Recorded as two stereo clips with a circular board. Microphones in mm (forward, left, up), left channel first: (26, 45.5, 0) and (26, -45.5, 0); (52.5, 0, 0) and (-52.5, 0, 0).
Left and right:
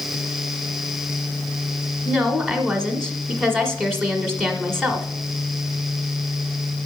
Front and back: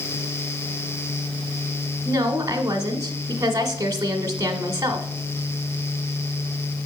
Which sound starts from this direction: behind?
A woman speaking, at 2.0 s.